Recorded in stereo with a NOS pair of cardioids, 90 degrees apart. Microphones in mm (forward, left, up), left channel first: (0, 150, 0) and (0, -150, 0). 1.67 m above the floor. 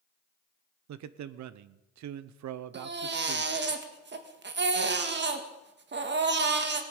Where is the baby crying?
35° right, 1.9 m.